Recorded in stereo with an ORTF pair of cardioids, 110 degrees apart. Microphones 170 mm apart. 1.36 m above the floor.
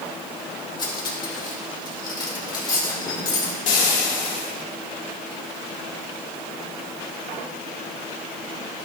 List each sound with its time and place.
0.8 s cutlery clinking: 30° left, 2.5 m
3.7 s frying: 55° left, 2.5 m